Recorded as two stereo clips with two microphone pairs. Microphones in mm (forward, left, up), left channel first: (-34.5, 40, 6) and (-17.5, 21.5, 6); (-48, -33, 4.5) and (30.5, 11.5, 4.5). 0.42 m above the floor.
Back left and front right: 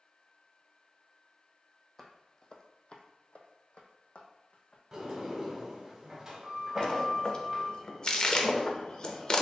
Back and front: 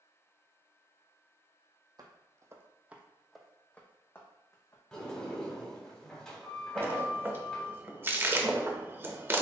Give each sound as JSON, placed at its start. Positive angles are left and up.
{"t": 2.0, "sound": "footsteps", "azimuth_deg": 60, "distance_m": 0.8}
{"t": 4.9, "sound": "a sliding door", "azimuth_deg": -85, "distance_m": 1.4}
{"t": 6.8, "sound": "a splash", "azimuth_deg": 90, "distance_m": 0.6}